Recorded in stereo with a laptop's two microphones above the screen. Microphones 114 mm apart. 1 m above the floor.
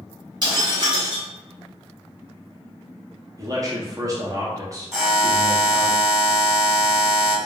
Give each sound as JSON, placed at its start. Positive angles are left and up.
{"t": 0.4, "sound": "breaking glass", "side_deg": -45, "distance_m": 1.6}
{"t": 3.4, "sound": "a man speaking", "side_deg": -30, "distance_m": 0.5}
{"t": 4.9, "sound": "a buzzer", "side_deg": 0, "distance_m": 1.2}